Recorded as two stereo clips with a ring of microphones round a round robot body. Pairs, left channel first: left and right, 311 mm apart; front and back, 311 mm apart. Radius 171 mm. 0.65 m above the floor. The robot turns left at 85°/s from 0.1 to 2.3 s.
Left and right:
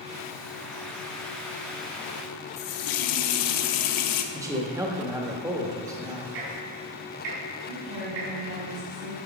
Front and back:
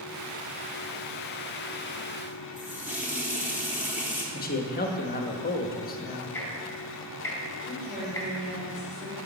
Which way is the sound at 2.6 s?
95° left.